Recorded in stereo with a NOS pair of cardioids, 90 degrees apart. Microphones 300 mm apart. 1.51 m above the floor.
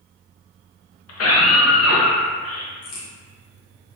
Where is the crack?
65° left, 1.2 m.